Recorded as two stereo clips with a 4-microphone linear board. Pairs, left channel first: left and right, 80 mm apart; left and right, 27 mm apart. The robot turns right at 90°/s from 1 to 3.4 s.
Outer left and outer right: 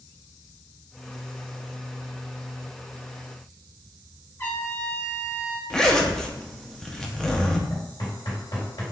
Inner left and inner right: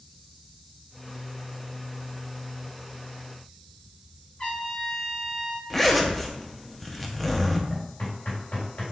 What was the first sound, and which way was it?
A trumpet, 35° left (ahead or behind).